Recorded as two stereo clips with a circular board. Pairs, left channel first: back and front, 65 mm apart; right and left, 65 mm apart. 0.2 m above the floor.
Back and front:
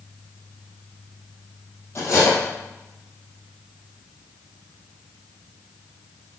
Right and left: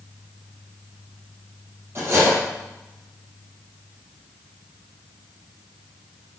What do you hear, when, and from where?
1.9 s cutlery clinking: 140° left, 4 m